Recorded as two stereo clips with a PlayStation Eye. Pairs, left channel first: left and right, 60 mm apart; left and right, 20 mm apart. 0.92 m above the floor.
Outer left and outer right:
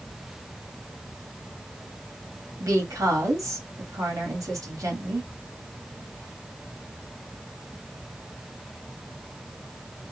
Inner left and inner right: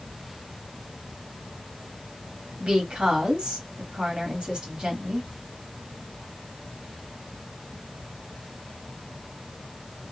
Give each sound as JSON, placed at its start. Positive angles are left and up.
{"t": 2.6, "sound": "a woman speaking", "side_deg": -65, "distance_m": 2.0}